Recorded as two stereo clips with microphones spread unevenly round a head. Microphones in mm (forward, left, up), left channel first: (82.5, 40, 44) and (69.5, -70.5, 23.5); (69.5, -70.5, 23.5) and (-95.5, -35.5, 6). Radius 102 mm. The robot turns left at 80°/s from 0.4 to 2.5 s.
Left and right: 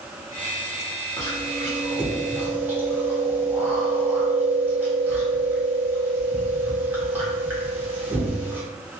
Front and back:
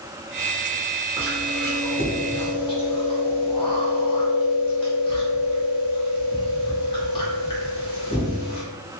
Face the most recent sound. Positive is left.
turn(degrees=-20)